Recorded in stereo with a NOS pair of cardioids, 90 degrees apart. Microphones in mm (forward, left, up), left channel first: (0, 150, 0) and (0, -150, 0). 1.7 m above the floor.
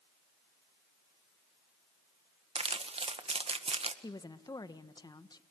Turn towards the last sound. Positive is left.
turn(degrees=15)